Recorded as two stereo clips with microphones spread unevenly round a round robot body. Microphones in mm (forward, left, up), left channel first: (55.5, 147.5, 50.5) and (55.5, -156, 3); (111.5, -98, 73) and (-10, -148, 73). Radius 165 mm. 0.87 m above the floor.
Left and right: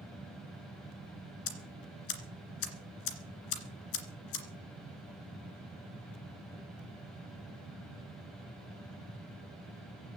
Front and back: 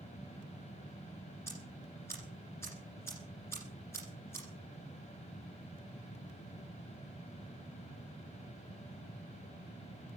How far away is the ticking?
About 2.5 m.